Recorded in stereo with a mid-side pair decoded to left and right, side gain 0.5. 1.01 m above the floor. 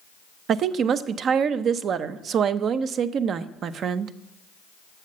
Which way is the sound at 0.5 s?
60° right.